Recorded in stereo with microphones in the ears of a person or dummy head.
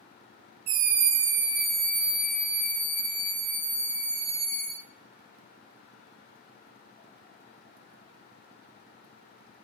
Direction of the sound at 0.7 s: 30° right (ahead or behind).